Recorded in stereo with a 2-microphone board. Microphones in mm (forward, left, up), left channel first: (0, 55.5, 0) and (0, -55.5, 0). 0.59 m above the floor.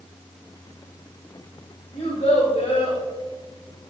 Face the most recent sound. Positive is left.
turn(degrees=70)  # may be behind; listen again after turning